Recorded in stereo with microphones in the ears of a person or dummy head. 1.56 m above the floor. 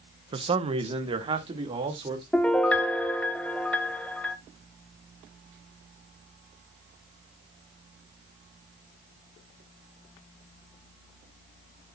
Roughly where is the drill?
No drill in this recording.